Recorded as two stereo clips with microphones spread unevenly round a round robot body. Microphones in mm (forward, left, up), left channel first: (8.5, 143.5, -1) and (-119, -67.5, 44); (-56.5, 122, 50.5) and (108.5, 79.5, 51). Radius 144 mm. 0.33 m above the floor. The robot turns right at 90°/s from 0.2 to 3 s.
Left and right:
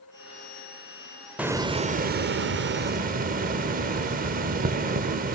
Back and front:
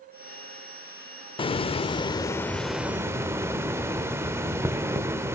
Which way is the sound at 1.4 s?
140° left.